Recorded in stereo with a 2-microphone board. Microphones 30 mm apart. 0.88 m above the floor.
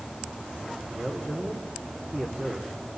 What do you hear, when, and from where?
0.9 s a man speaking: 40° right (ahead or behind), 3.5 m